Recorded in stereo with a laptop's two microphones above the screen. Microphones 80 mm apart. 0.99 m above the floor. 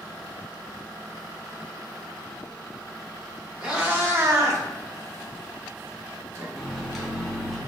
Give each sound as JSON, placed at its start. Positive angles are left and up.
{"t": 3.6, "sound": "a cat meowing", "side_deg": -10, "distance_m": 0.7}
{"t": 6.5, "sound": "a microwave", "side_deg": 0, "distance_m": 0.9}